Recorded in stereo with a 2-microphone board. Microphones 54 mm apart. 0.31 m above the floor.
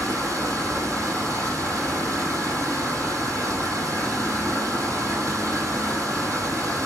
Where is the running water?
70° right (ahead or behind), 6 m.